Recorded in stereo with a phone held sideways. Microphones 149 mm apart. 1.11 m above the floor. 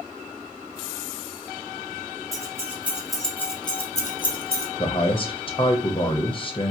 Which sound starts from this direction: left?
A man speaking, at 4.8 s.